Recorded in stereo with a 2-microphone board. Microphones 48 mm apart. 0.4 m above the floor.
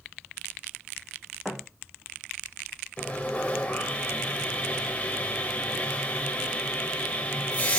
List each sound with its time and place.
1.4 s a thud: 5° right (ahead or behind), 3 m
3.0 s sawing: 25° left (ahead or behind), 1.8 m